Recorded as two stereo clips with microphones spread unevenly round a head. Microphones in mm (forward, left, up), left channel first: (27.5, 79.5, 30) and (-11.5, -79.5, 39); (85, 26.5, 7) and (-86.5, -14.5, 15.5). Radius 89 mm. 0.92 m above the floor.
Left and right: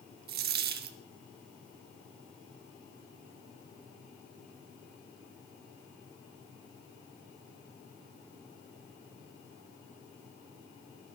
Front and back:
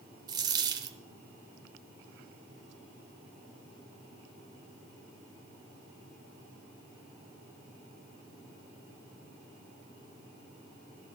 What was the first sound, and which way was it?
A dropped coin, 105° right.